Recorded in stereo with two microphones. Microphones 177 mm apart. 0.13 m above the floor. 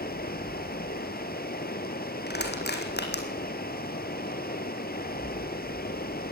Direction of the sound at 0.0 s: 60° left (ahead or behind).